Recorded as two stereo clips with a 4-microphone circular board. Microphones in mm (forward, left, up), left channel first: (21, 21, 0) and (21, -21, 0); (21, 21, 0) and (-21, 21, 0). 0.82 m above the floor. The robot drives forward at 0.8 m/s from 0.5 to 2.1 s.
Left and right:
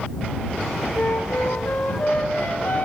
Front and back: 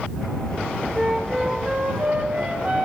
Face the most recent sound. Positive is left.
turn(degrees=130)